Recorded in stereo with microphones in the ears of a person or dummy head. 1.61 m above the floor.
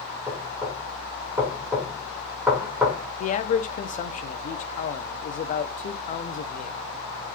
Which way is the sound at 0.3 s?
10° right (ahead or behind).